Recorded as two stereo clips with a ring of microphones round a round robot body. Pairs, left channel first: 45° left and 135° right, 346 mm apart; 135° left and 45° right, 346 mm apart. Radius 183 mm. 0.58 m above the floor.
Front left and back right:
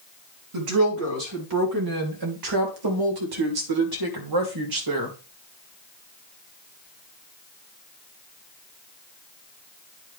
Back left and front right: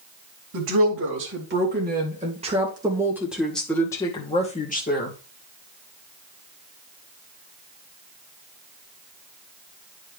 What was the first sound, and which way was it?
A woman speaking, 95° right.